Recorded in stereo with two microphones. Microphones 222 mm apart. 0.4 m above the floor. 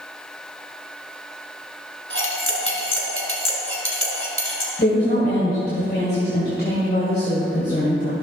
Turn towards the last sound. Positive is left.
turn(degrees=45)  # may be behind; listen again after turning